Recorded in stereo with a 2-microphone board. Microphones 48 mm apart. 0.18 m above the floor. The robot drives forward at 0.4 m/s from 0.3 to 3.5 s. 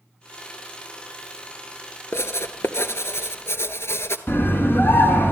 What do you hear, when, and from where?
2.1 s writing: 70° left (ahead or behind), 1.3 m; by 4.2 s 65° left (ahead or behind), 1.4 m
4.3 s a scream: 50° left (ahead or behind), 2.5 m